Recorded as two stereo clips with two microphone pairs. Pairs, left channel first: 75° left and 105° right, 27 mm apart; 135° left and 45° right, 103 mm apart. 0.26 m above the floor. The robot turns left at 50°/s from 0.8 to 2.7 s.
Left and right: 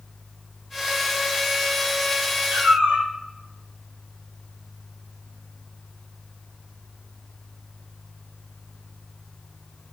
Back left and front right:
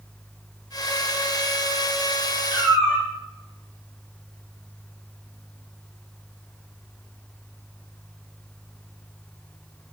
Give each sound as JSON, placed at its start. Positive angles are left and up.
{"t": 2.5, "sound": "a cat meowing", "azimuth_deg": -110, "distance_m": 1.3}